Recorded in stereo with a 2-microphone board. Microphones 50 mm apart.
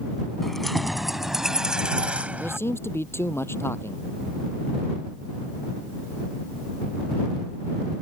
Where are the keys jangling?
5° left (ahead or behind); by 2.6 s 35° right (ahead or behind).